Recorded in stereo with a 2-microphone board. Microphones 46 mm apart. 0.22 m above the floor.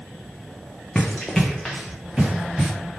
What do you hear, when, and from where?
0.9 s running footsteps: 30° left (ahead or behind), 0.7 m; by 2.7 s 5° right (ahead or behind), 2 m